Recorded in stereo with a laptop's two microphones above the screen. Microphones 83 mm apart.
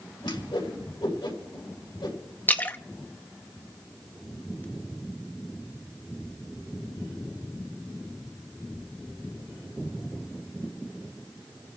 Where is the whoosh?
85° left, 3 m.